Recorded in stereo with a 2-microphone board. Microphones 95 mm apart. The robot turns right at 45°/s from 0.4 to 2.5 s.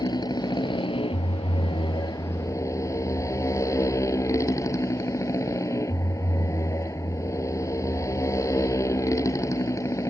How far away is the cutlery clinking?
I don't hear cutlery clinking.